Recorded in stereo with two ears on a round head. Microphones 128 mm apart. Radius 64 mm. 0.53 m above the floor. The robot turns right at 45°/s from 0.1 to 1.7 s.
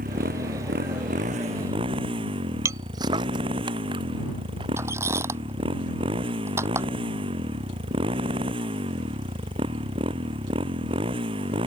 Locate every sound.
0.0 s a motorcycle: 110° right; by 11.7 s 40° right
2.6 s footsteps: 25° right (ahead or behind); by 4.7 s 35° right (ahead or behind)
4.8 s a squeak: 20° right (ahead or behind)